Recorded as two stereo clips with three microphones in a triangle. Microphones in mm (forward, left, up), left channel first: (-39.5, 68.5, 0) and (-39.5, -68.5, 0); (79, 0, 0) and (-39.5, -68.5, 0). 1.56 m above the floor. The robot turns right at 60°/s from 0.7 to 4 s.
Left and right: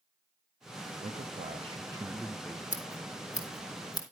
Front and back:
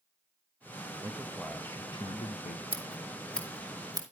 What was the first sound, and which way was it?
A man speaking, 85° right.